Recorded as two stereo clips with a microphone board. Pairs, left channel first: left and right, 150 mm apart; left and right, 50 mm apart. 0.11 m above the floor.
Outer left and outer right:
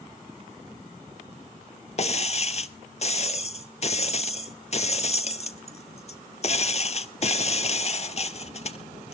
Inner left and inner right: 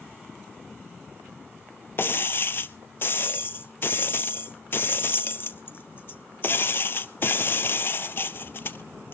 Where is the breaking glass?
50° left (ahead or behind), 0.6 m.